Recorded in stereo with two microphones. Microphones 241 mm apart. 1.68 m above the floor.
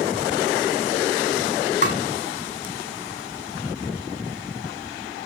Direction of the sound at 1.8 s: 45° left (ahead or behind).